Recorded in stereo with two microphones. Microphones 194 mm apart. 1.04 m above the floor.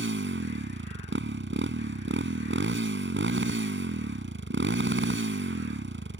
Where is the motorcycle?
80° right.